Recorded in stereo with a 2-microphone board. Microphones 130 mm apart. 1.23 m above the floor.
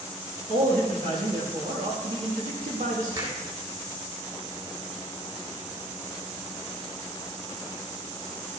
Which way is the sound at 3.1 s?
35° right (ahead or behind).